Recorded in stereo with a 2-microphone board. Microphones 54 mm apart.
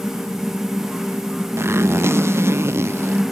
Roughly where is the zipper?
Right.